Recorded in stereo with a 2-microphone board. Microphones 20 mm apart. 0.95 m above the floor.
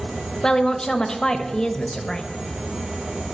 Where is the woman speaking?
30° left (ahead or behind), 1.1 m.